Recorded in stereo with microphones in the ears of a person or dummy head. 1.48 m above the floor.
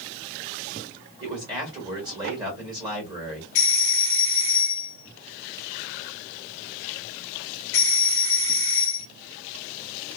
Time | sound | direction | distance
1.2 | a man speaking | 20° right (ahead or behind) | 1.8 m
3.5 | a doorbell | 65° left (ahead or behind) | 0.5 m